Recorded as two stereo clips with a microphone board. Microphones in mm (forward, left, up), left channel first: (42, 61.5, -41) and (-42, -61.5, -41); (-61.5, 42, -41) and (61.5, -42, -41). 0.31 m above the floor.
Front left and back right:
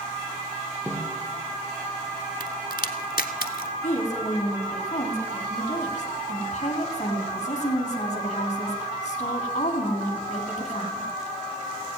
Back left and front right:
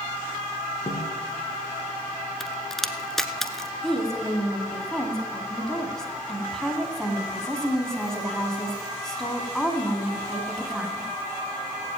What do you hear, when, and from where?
0.9 s a snare drum: 160° left, 3 m
2.4 s a crack: 60° left, 0.8 m
3.8 s a woman speaking: 60° left, 2 m